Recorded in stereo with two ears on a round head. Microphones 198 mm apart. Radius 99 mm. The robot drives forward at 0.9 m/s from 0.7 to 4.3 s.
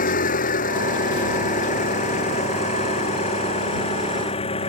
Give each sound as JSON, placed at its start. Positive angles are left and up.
{"t": 0.0, "sound": "an engine running", "side_deg": 40}